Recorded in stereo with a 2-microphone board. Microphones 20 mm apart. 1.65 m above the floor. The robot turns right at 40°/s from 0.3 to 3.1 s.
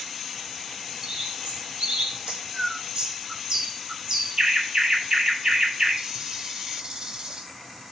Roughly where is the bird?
Right.